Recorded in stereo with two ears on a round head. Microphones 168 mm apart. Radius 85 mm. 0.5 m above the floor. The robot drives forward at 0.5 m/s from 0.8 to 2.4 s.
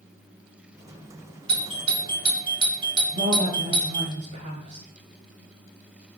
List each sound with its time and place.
1.5 s a doorbell: 30° right (ahead or behind), 2 m; by 4.1 s 25° right (ahead or behind), 2 m
3.1 s a woman speaking: 60° right (ahead or behind), 5.5 m